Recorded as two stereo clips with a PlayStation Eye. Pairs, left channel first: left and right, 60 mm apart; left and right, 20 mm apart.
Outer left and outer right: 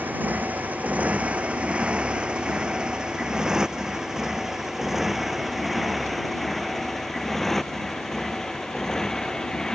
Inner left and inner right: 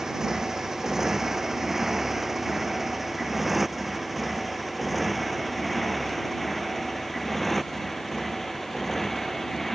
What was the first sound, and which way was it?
A motorcycle, 30° right (ahead or behind).